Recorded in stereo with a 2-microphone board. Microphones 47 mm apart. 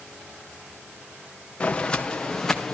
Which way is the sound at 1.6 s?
25° left (ahead or behind).